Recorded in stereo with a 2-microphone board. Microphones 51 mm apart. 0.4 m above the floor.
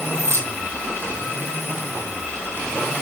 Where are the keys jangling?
70° right (ahead or behind), 2.5 m.